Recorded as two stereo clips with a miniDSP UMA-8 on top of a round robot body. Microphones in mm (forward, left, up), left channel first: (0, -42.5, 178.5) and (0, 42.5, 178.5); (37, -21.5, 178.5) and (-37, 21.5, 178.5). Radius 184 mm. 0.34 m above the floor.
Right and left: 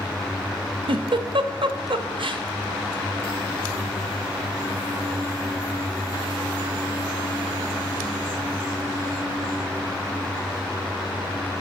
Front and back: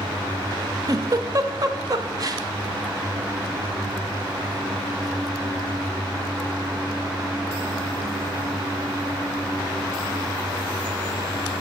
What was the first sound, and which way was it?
A giggle, 105° left.